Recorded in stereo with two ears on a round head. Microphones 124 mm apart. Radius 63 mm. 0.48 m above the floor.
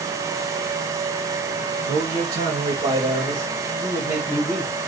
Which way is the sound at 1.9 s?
50° right (ahead or behind).